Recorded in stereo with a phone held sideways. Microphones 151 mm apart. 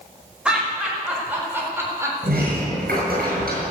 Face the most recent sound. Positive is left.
turn(degrees=-80)